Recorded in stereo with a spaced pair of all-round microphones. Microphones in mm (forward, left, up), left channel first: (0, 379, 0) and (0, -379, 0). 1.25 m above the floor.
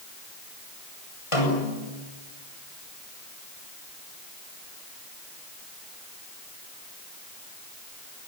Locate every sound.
1.3 s a snare drum: 40° left (ahead or behind), 8 m